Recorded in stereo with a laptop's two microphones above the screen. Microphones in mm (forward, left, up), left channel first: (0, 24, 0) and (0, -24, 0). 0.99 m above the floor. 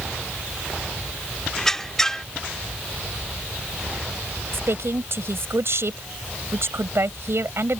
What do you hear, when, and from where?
1.6 s a squeak: 10° left (ahead or behind)
4.5 s a woman speaking: 65° right (ahead or behind)